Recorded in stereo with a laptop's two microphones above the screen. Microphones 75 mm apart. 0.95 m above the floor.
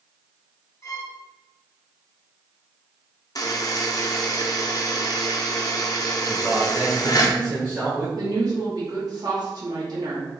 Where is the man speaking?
15° right (ahead or behind), 1.2 m.